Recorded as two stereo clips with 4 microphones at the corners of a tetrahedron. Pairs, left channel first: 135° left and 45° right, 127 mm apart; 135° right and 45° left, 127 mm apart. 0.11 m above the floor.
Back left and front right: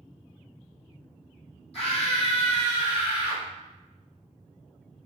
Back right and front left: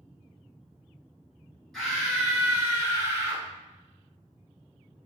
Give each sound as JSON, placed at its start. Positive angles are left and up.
{"t": 1.7, "sound": "a scream", "azimuth_deg": 140, "distance_m": 1.7}